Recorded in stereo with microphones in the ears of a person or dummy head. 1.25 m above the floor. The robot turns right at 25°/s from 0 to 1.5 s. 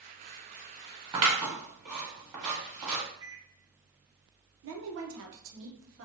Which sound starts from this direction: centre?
A microwave, at 3.2 s.